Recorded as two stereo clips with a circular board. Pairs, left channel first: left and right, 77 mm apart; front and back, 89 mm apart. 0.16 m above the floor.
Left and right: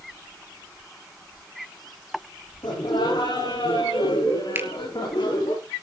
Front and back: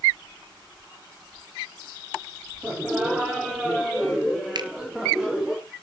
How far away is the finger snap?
About 2.5 m.